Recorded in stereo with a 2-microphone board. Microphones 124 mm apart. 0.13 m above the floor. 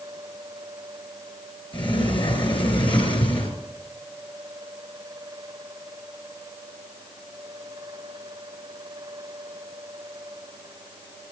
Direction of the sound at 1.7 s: 40° left (ahead or behind).